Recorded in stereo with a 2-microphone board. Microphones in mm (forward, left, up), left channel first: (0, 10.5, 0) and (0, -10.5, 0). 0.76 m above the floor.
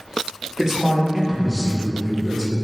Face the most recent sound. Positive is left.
turn(degrees=-25)  # may be behind; listen again after turning